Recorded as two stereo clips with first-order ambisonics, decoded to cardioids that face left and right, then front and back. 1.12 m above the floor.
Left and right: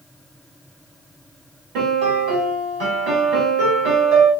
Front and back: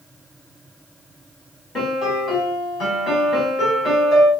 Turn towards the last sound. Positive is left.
turn(degrees=-70)